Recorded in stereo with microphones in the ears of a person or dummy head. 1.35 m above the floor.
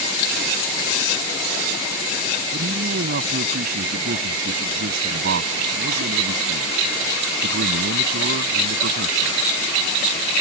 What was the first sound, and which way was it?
A man speaking, 60° right (ahead or behind).